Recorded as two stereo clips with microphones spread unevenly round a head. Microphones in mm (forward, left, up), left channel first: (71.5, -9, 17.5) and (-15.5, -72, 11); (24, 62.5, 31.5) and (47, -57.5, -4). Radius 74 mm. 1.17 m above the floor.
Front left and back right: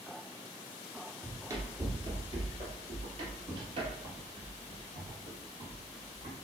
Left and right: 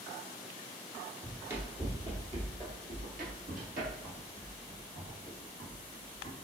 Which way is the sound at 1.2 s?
Straight behind.